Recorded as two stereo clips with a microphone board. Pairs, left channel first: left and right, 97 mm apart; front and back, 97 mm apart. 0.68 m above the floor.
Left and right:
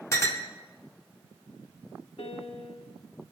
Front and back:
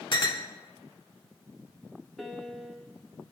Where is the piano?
90° left, 0.8 m.